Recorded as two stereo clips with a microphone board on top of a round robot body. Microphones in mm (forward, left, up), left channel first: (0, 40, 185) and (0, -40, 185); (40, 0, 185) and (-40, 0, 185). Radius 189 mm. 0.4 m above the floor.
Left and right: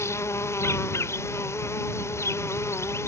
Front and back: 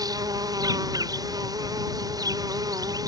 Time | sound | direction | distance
0.0 | an insect | 145° left | ?